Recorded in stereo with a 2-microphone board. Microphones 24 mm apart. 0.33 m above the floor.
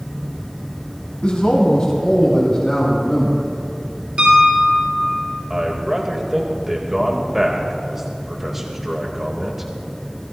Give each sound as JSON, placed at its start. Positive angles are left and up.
{"t": 1.2, "sound": "a man speaking", "side_deg": 45, "distance_m": 2.5}
{"t": 4.2, "sound": "a piano", "side_deg": -50, "distance_m": 4.0}
{"t": 5.5, "sound": "a man speaking", "side_deg": -15, "distance_m": 1.7}